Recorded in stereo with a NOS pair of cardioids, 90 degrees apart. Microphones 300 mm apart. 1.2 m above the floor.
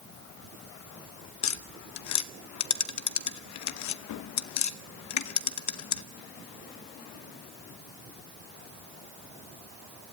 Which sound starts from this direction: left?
Tapping, at 1.4 s.